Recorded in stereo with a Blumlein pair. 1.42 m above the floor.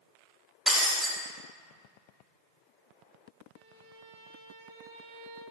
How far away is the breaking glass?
About 2 m.